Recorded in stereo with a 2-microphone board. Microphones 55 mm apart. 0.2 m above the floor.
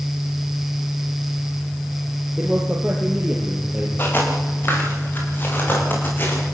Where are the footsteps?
40° left (ahead or behind), 10 m; by 6.4 s 35° left (ahead or behind), 11.5 m.